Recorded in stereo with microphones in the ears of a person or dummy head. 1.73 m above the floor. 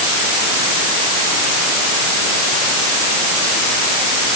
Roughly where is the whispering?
No whispering in this recording.